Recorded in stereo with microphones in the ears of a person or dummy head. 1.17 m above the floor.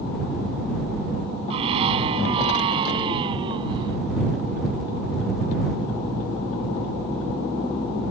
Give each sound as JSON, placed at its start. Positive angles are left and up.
{"t": 1.5, "sound": "a scream", "side_deg": -30}